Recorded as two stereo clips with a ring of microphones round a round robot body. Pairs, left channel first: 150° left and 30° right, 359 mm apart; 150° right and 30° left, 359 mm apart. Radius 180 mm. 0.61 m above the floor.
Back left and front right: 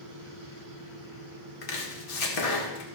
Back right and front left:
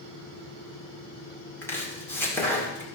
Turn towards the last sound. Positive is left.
turn(degrees=125)